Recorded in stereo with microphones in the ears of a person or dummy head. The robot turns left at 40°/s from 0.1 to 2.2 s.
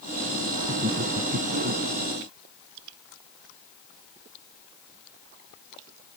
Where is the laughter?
30° right; by 1.8 s 75° right.